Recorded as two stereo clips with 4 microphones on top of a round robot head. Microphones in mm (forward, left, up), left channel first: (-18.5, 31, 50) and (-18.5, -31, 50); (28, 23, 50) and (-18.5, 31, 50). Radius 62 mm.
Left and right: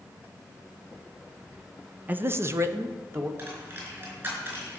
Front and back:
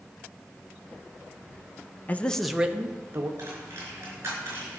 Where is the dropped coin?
140° right, 4.5 m.